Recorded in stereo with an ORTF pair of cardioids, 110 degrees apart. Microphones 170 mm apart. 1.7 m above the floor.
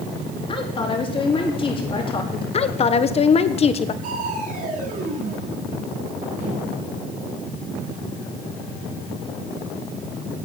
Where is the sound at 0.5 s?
30° left, 3.5 m.